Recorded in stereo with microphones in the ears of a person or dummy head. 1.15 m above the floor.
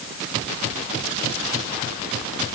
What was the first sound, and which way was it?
Only background noise.